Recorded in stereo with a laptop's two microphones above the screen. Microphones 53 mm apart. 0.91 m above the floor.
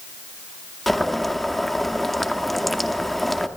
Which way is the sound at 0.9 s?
5° left (ahead or behind).